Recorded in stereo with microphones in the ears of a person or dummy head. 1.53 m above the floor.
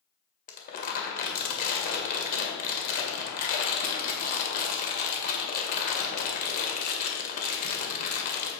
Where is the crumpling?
45° left (ahead or behind), 1.8 m.